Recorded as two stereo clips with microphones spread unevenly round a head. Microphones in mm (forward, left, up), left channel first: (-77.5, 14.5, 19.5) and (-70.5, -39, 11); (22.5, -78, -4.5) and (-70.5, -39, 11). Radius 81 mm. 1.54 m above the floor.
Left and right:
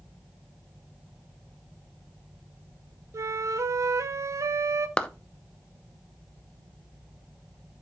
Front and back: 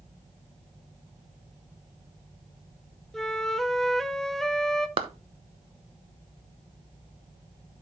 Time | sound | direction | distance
3.1 | a flute | 110° right | 0.9 m
5.0 | a clap | 160° left | 0.9 m